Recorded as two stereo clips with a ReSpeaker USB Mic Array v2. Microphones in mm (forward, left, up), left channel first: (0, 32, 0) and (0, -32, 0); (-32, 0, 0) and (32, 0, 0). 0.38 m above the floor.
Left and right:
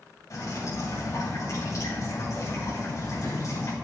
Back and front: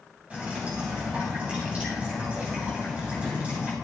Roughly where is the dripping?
Ahead left.